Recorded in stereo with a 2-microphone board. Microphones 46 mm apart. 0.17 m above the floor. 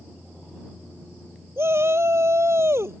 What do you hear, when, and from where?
1.6 s a shout: 65° right (ahead or behind)